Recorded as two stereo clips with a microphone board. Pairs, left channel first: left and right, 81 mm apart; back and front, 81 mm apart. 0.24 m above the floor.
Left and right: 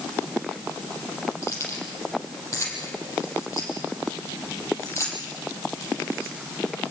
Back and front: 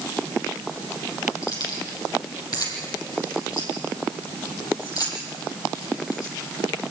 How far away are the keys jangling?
About 6 m.